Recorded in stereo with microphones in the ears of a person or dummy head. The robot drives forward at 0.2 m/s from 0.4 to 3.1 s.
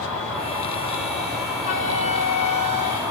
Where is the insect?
5° left (ahead or behind), 1.6 m.